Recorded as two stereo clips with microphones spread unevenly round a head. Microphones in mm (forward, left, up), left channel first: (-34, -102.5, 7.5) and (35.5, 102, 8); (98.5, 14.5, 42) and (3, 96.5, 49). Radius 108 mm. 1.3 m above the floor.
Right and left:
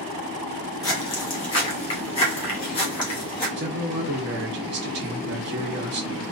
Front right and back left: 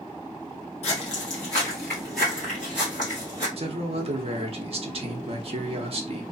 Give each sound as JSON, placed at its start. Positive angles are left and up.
{"t": 0.8, "sound": "footsteps", "azimuth_deg": -50, "distance_m": 1.5}
{"t": 3.6, "sound": "a man speaking", "azimuth_deg": 105, "distance_m": 0.9}